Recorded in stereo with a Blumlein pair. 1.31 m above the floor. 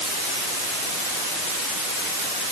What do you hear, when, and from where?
Only background noise.